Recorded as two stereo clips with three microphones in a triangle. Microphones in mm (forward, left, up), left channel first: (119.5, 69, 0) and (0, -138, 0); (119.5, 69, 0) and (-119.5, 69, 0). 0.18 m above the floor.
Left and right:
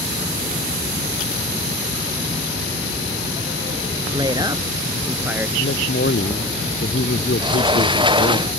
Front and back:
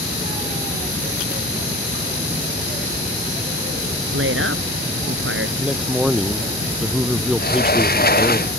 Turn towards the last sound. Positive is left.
turn(degrees=-50)